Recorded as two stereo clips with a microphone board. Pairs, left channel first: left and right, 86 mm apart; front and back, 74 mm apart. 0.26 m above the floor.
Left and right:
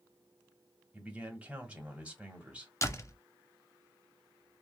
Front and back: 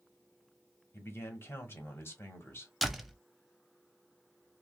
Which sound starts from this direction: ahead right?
A man speaking, at 0.9 s.